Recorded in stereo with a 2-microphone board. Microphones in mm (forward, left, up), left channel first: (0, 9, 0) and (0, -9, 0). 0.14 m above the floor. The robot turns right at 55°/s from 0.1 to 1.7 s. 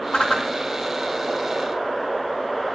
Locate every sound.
0.1 s a whoosh: 65° left (ahead or behind), 2 m; by 0.5 s 50° left (ahead or behind), 2 m